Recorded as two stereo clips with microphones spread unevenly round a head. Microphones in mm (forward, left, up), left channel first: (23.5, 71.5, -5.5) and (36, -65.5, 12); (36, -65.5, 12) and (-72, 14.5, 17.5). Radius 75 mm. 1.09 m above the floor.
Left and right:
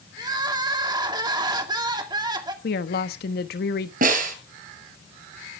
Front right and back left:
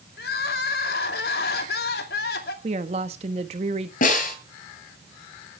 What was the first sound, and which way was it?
Crying, 25° right.